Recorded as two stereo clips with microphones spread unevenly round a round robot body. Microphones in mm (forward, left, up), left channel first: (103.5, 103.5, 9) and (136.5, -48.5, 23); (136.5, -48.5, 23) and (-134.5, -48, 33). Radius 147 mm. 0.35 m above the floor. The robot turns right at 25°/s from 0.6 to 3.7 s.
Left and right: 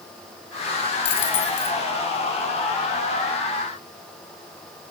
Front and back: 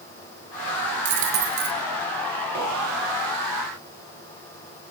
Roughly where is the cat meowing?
I don't hear a cat meowing.